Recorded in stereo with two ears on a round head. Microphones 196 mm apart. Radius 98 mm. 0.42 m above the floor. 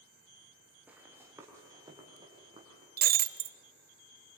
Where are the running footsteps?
5° right (ahead or behind), 5 m; by 2.9 s 25° right (ahead or behind), 6.5 m.